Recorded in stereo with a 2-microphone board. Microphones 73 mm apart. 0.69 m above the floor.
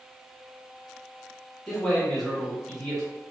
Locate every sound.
1.7 s a man speaking: 5° left (ahead or behind), 1.1 m